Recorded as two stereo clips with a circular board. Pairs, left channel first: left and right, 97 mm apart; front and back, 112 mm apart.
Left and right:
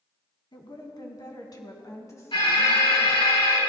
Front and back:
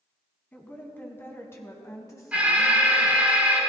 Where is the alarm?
105° left, 4 m.